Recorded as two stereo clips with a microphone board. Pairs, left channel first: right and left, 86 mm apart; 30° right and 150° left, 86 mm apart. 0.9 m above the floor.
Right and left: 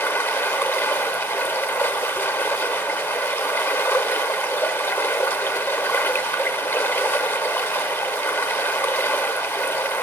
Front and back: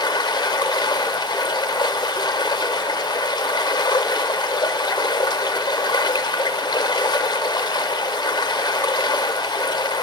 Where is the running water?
35° right, 0.9 m.